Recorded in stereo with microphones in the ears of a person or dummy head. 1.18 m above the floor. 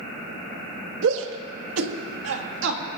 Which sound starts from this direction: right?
A shout, at 1.0 s.